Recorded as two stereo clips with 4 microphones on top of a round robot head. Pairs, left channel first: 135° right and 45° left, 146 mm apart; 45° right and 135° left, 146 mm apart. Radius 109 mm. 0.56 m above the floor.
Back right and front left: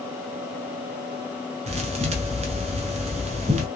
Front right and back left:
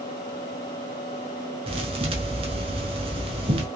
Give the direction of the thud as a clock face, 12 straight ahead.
9 o'clock.